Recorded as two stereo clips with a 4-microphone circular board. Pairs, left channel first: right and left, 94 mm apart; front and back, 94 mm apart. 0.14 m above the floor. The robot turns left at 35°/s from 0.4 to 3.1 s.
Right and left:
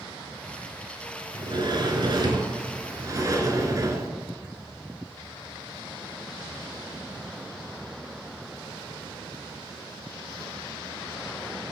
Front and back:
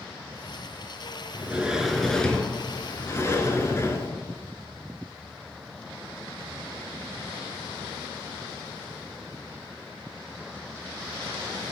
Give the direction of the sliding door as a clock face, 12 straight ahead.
8 o'clock.